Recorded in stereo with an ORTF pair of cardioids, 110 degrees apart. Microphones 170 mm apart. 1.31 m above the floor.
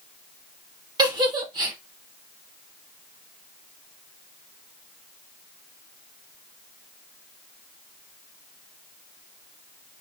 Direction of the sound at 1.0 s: 25° right.